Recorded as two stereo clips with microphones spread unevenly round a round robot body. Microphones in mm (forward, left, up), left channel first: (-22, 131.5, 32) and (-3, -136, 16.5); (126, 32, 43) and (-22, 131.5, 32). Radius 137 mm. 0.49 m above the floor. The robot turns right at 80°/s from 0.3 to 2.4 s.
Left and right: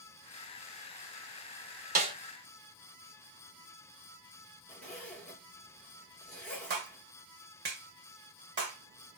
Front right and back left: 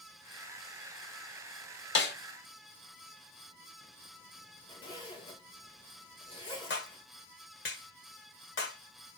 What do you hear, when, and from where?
1.9 s a snare drum: 30° right, 1.2 m; by 2.1 s 10° right, 1.2 m
4.7 s a zipper: 10° left, 1.5 m
6.7 s a clap: 35° right, 1.5 m